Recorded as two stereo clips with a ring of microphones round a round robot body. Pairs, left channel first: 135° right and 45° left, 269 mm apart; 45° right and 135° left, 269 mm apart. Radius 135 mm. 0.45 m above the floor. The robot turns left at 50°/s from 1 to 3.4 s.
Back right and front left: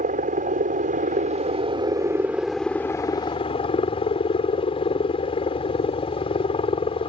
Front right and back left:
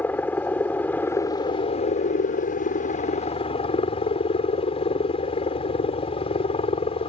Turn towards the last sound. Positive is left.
turn(degrees=-90)